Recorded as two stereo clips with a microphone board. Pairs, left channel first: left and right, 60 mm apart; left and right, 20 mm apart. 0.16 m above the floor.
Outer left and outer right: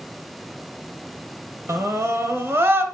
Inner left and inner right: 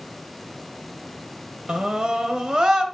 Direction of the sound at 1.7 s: 55° right (ahead or behind).